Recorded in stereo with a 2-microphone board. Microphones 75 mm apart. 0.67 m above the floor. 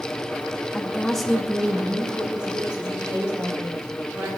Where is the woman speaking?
15° left (ahead or behind), 0.5 m; by 4.3 s 15° right (ahead or behind), 2.5 m.